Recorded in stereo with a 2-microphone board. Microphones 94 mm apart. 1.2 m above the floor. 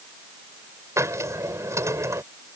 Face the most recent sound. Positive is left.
turn(degrees=-30)  # may be behind; listen again after turning